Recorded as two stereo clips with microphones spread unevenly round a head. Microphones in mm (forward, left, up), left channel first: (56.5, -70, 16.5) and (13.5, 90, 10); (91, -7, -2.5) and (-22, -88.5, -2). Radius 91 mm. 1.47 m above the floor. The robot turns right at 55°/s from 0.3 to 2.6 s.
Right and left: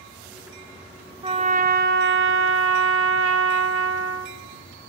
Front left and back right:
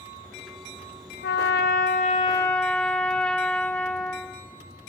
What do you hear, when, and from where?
1.2 s a trumpet: 45° left, 1.3 m; by 4.4 s 120° left, 1.3 m